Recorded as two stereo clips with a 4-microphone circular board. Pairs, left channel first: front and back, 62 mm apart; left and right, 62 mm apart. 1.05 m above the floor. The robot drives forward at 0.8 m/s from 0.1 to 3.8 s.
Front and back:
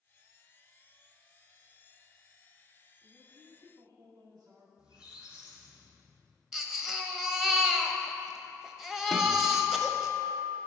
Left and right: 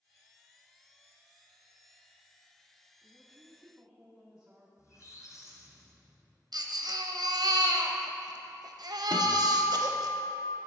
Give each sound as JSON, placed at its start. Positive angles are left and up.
{"t": 3.0, "sound": "a woman speaking", "azimuth_deg": -160, "distance_m": 1.1}
{"t": 4.8, "sound": "a squeak", "azimuth_deg": 105, "distance_m": 1.6}
{"t": 6.5, "sound": "a baby crying", "azimuth_deg": -95, "distance_m": 0.6}
{"t": 9.1, "sound": "a guitar", "azimuth_deg": 85, "distance_m": 0.7}